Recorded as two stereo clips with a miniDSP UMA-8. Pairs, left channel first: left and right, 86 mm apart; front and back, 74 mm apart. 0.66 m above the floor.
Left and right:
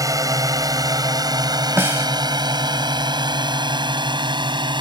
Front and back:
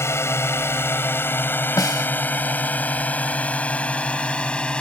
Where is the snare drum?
30° right.